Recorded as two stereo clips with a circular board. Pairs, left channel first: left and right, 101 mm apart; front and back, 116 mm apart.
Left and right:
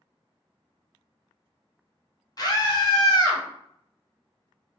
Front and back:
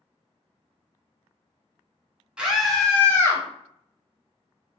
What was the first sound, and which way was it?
A scream, 105° left.